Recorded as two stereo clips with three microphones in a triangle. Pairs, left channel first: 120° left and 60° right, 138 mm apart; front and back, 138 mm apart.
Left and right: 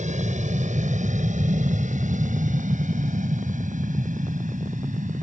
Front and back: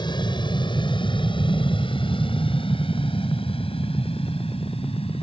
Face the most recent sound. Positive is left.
turn(degrees=-45)